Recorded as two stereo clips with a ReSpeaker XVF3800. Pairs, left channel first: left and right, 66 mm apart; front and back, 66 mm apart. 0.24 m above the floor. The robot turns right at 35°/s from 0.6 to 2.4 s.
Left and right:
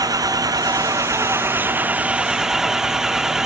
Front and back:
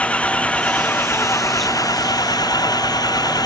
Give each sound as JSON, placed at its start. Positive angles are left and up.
{"t": 0.0, "sound": "an engine running", "azimuth_deg": -70}